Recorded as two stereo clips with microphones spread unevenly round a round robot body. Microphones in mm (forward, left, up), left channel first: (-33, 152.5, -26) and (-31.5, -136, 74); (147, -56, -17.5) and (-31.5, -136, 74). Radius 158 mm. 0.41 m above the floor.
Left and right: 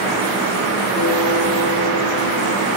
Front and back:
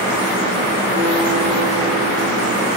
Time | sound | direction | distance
1.0 | a guitar | 150° left | 4 m